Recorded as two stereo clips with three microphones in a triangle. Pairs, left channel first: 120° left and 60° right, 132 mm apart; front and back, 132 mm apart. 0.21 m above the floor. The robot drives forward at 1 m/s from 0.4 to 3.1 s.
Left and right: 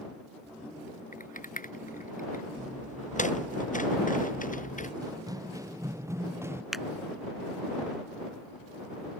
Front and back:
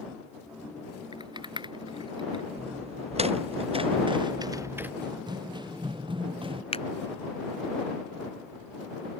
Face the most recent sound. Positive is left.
turn(degrees=30)